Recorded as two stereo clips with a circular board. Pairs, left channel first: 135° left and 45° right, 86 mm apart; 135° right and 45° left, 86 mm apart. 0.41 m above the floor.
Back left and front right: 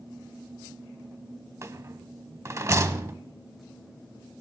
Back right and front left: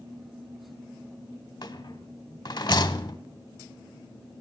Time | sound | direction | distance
1.6 | a rattle | 100° right | 0.6 m